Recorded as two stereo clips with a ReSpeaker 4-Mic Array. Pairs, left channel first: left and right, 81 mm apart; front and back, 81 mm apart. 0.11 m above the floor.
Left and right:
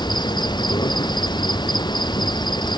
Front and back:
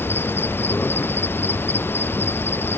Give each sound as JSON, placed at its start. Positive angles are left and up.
{"t": 0.0, "sound": "an insect", "azimuth_deg": 60}